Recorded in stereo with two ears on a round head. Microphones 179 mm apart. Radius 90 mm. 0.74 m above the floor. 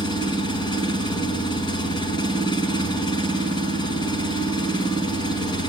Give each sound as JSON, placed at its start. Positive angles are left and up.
{"t": 0.0, "sound": "an engine running", "side_deg": 25, "distance_m": 4.5}